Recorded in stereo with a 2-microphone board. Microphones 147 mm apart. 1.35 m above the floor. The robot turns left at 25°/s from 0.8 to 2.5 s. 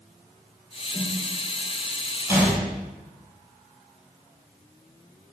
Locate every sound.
0.9 s a snare drum: 10° left (ahead or behind), 2.5 m; by 1.1 s 15° left (ahead or behind), 2.5 m
2.3 s a gunshot: 15° right (ahead or behind), 4 m; by 2.6 s 10° right (ahead or behind), 4 m